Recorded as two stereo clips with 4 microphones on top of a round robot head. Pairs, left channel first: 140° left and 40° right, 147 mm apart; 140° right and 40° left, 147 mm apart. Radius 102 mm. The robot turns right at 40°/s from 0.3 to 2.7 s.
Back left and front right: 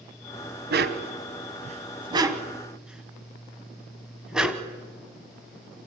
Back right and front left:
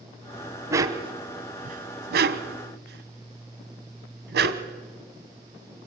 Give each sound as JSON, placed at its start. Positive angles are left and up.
{"t": 0.7, "sound": "a dog barking", "azimuth_deg": -35, "distance_m": 1.2}